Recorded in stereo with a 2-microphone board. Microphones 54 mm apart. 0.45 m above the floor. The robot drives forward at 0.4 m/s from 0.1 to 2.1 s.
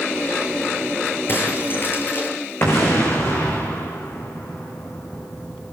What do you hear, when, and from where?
1.3 s breaking glass: 45° left (ahead or behind), 6.5 m
2.6 s an explosion: 45° left (ahead or behind), 5.5 m